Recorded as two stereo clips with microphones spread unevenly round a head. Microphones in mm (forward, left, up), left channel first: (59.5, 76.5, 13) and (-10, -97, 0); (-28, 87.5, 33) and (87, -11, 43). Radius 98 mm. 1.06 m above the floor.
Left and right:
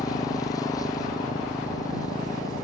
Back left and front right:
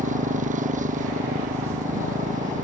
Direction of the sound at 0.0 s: 5° right.